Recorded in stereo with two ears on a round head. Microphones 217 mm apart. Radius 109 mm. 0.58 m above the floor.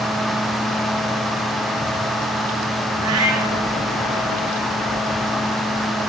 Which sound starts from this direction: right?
A cat meowing, at 3.0 s.